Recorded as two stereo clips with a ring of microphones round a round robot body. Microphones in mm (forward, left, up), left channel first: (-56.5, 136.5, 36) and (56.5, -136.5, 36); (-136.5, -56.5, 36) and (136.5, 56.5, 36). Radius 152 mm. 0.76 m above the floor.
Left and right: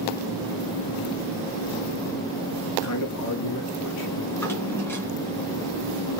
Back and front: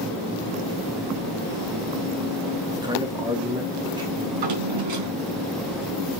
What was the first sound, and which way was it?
A man speaking, 95° left.